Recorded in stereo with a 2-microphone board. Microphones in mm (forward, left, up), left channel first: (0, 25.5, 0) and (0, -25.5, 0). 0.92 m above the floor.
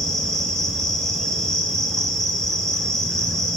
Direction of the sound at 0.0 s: 10° left (ahead or behind).